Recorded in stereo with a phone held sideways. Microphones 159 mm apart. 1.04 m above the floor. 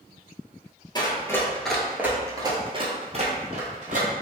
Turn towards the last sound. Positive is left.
turn(degrees=-55)  # may be behind; listen again after turning